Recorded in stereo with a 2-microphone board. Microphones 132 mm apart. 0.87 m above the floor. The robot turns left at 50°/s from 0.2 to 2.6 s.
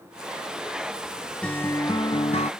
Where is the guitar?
170° left; by 2.5 s 115° left.